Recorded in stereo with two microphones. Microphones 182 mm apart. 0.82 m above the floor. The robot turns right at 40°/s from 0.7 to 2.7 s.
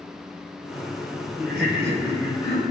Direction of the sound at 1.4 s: 110° right.